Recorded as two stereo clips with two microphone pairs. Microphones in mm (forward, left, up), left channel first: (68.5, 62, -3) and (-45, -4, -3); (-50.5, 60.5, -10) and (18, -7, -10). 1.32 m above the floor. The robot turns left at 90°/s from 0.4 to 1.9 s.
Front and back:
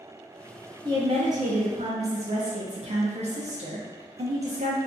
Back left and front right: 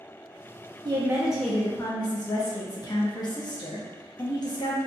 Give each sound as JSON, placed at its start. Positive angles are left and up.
{"t": 0.8, "sound": "a woman speaking", "azimuth_deg": -90, "distance_m": 0.6}